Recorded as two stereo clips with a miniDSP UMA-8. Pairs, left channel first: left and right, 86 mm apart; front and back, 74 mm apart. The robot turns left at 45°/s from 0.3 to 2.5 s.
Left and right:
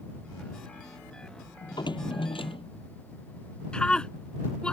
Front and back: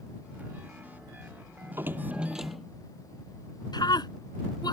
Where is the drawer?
130° left; by 2.7 s 90° left.